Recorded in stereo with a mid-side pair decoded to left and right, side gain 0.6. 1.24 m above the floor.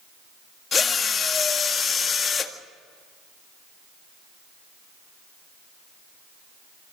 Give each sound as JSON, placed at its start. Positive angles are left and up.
{"t": 0.7, "sound": "a drill", "azimuth_deg": 30, "distance_m": 1.7}